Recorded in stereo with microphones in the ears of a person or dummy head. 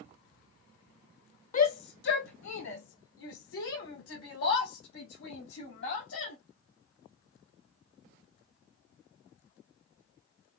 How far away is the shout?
About 0.6 m.